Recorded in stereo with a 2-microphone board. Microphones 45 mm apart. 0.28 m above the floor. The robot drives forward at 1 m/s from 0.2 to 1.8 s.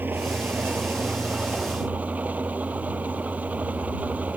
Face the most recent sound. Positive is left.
turn(degrees=-35)  # may be behind; listen again after turning